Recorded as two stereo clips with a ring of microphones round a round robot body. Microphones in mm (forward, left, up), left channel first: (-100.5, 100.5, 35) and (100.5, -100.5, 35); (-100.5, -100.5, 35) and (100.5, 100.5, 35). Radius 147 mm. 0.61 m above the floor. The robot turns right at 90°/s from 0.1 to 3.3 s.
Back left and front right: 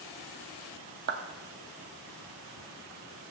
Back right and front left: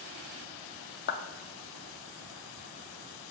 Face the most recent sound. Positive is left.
turn(degrees=110)